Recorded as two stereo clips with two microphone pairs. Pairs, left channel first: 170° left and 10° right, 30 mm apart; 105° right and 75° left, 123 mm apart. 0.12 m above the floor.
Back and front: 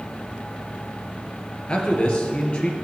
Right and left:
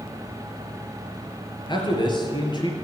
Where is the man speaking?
145° right, 2.5 m.